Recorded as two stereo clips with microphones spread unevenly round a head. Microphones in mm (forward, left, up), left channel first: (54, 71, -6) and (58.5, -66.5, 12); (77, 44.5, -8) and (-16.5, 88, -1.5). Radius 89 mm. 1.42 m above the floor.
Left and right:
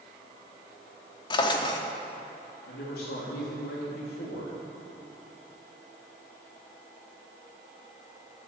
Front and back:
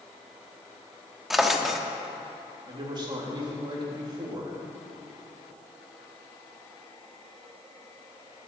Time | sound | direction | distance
1.3 | a drawer | 80° left | 0.9 m
2.7 | a man speaking | 110° left | 3 m